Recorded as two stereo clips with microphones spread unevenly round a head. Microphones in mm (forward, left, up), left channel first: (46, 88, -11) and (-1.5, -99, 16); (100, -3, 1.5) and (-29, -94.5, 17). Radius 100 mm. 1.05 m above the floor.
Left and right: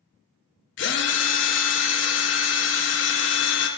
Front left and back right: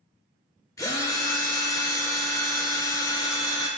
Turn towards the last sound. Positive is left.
turn(degrees=110)